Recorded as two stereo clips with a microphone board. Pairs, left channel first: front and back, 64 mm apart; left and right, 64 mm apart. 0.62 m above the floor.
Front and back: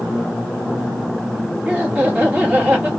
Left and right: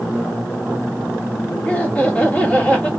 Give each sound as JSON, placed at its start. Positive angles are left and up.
{"t": 1.6, "sound": "laughter", "azimuth_deg": 135, "distance_m": 1.2}